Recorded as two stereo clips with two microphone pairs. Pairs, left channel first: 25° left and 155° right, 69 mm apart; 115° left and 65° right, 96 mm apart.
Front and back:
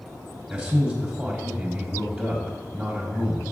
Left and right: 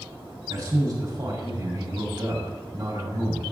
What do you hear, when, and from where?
0.5 s a man speaking: 85° right, 1.4 m